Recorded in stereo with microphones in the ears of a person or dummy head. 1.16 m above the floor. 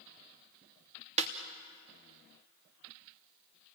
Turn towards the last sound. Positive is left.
turn(degrees=-30)  # may be behind; listen again after turning